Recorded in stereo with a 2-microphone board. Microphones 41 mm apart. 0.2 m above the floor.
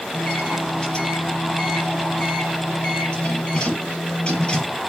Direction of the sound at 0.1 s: 25° left (ahead or behind).